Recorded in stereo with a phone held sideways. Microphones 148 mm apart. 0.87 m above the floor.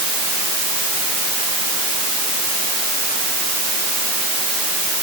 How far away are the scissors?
No scissors in this recording.